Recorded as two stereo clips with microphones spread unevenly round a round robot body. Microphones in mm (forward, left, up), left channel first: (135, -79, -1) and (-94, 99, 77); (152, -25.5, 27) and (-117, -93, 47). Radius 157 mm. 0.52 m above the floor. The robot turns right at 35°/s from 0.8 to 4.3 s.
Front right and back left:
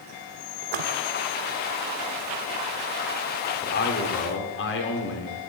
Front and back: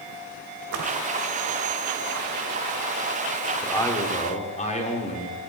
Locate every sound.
0.6 s a splash: 145° left, 1.0 m; by 0.9 s 150° left, 1.0 m
3.6 s a man speaking: 65° right, 1.8 m; by 5.4 s 45° right, 1.8 m